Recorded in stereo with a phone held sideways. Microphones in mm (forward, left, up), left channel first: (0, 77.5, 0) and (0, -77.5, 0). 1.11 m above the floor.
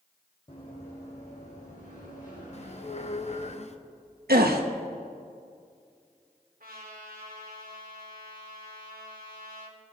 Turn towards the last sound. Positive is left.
turn(degrees=-70)  # may be behind; listen again after turning